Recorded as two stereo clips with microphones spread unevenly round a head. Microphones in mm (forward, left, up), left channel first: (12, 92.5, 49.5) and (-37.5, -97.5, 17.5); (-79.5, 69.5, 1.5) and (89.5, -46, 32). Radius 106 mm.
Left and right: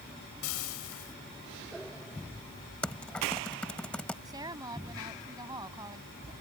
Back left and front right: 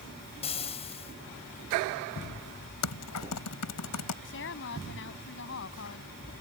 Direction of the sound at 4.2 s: 175° right.